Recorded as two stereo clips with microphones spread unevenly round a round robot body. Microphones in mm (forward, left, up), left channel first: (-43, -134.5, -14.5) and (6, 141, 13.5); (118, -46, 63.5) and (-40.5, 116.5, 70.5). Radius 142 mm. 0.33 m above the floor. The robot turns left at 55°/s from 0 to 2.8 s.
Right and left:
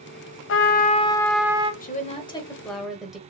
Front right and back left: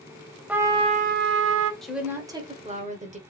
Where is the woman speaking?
130° right, 1.2 m; by 3.2 s 175° left, 1.2 m.